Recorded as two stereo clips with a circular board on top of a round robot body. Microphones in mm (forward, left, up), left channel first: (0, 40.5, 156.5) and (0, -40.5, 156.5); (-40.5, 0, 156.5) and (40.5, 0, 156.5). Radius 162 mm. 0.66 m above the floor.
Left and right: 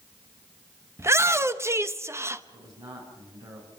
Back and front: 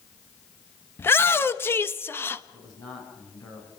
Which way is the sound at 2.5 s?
140° right.